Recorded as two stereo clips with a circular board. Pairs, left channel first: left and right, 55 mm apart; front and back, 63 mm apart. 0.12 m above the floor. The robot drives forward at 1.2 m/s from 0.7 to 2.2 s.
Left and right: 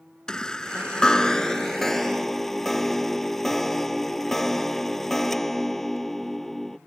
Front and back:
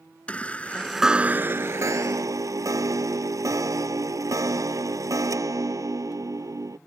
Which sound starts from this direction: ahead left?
A chime, at 0.3 s.